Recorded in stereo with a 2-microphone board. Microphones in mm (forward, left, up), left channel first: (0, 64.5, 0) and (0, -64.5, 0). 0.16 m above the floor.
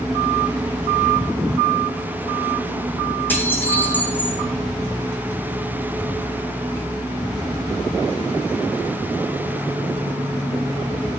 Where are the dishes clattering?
15° left (ahead or behind), 5.5 m.